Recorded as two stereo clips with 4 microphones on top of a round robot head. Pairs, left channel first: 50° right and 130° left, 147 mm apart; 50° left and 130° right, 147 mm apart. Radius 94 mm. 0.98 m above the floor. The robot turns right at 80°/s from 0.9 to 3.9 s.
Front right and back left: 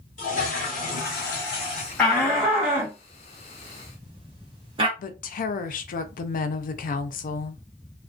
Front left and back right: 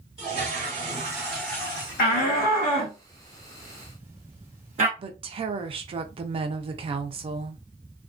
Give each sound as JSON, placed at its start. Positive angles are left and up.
{"t": 0.2, "sound": "a toilet flushing", "azimuth_deg": -80, "distance_m": 0.8}
{"t": 2.0, "sound": "a shout", "azimuth_deg": 35, "distance_m": 0.8}
{"t": 5.0, "sound": "a woman speaking", "azimuth_deg": -75, "distance_m": 0.5}